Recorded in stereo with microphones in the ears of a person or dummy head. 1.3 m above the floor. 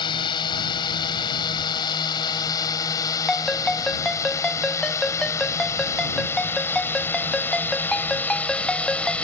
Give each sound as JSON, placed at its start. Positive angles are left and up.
{"t": 0.0, "sound": "a drone", "side_deg": 25}
{"t": 3.3, "sound": "a ringtone", "side_deg": 5}